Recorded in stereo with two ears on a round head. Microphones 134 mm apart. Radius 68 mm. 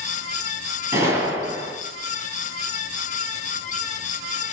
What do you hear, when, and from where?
0.9 s a gunshot: 15° right (ahead or behind), 8 m